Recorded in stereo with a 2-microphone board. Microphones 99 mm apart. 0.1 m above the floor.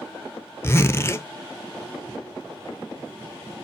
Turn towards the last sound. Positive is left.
turn(degrees=25)  # may be behind; listen again after turning